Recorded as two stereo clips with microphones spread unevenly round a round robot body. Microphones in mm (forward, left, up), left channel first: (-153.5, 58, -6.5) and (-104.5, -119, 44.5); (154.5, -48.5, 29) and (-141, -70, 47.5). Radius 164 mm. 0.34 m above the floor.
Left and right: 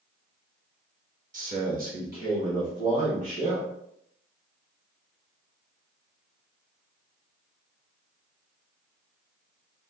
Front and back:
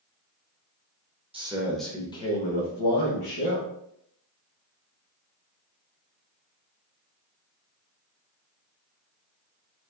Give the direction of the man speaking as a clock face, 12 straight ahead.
4 o'clock.